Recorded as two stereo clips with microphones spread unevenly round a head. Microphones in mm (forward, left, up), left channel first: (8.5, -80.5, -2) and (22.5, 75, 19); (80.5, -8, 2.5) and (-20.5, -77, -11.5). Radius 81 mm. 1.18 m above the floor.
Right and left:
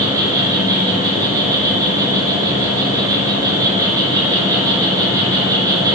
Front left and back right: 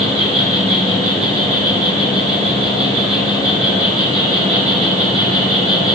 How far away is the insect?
About 6.5 m.